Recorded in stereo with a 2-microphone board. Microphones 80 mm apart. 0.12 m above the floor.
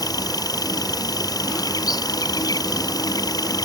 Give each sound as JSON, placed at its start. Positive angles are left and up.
{"t": 0.0, "sound": "an insect", "side_deg": 55}